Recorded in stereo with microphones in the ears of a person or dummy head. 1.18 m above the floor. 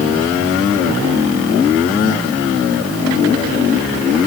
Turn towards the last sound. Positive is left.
No sound to turn to.